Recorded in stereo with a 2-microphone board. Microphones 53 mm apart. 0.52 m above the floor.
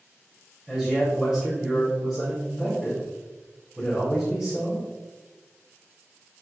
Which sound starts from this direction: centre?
A man speaking, at 0.7 s.